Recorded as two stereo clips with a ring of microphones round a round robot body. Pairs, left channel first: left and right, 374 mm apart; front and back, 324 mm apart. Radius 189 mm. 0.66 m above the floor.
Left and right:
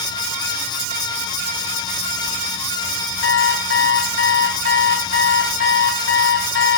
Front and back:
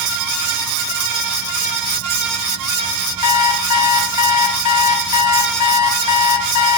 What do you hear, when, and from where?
3.2 s an alarm clock: 35° left, 3 m